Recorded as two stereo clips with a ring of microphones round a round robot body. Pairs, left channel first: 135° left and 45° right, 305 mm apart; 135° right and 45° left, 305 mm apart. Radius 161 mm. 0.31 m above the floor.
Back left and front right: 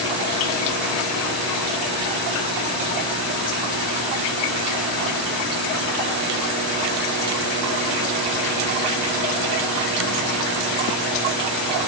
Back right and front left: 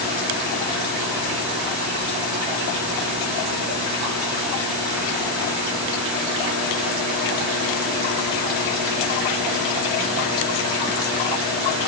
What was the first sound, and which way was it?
Only background noise.